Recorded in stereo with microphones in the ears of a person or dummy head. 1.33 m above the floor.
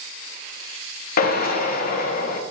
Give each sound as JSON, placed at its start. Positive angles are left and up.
{"t": 1.2, "sound": "a drill", "side_deg": 55, "distance_m": 0.7}